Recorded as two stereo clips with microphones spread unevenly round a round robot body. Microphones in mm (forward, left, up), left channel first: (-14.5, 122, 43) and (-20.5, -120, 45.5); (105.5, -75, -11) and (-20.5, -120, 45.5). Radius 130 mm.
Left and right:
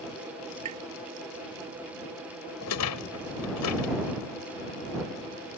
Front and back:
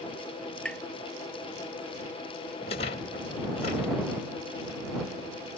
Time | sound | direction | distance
0.7 | tapping | 65° right | ?
2.6 | a rattle | 70° left | ?